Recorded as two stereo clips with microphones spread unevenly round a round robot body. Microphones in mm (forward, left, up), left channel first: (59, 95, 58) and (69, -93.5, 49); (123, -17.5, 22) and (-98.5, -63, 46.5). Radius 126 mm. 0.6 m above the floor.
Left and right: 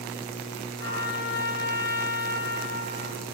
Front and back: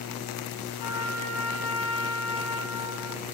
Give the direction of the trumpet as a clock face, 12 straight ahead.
10 o'clock.